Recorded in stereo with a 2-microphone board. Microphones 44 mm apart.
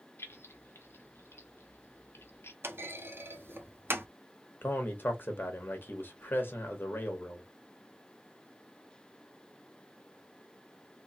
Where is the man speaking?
50° left (ahead or behind), 1.4 m.